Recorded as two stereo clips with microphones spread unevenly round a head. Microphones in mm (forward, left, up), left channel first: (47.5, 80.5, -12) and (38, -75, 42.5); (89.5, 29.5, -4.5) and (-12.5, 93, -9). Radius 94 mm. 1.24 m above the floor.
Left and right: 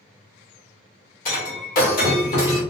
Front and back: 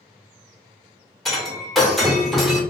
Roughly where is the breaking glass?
Ahead left.